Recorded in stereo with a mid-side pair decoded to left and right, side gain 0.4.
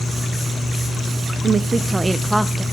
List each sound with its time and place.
1.4 s a woman speaking: 55° right, 0.7 m; by 2.6 s 5° right, 1.2 m